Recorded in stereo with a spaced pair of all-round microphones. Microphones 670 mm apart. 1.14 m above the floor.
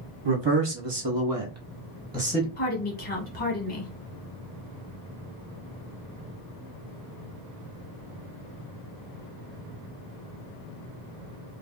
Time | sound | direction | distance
0.2 | a man speaking | 40° right (ahead or behind) | 1.0 m
2.6 | a woman speaking | 45° left (ahead or behind) | 1.3 m